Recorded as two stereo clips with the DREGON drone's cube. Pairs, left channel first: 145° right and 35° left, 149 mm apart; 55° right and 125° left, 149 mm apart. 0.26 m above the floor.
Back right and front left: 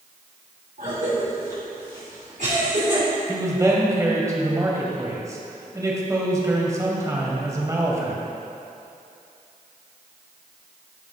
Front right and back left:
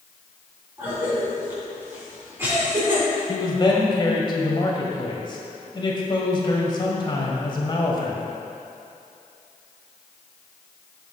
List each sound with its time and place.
0.8 s a cough: 50° left, 3 m
3.3 s a man speaking: 20° right, 1.7 m